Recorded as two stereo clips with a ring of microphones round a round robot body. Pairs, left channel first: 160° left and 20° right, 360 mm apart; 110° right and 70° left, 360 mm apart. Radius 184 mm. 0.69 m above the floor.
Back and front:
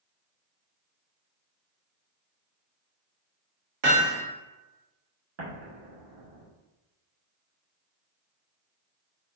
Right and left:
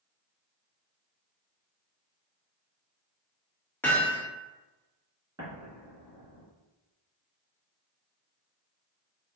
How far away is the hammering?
About 1.2 m.